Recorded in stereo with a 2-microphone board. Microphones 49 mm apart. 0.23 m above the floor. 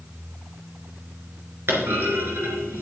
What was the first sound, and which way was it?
A clunk, 55° right (ahead or behind).